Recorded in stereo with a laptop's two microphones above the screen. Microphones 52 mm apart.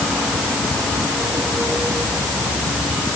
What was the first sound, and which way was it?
Only background noise.